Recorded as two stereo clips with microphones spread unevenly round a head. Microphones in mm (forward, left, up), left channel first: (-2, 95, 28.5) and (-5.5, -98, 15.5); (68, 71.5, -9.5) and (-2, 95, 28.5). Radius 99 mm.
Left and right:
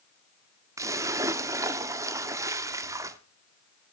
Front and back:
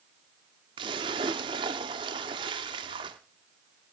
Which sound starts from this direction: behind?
A splash, at 0.8 s.